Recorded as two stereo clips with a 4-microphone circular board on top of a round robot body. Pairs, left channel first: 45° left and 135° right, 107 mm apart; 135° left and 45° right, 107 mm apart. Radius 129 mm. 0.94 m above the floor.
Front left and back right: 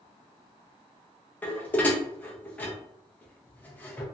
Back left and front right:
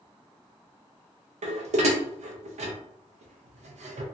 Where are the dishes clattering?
30° right, 0.5 m.